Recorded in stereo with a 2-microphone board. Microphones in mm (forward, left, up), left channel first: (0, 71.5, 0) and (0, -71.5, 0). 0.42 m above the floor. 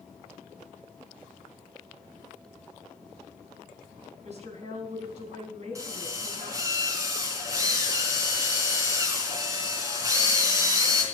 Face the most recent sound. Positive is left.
turn(degrees=-20)  # may be behind; listen again after turning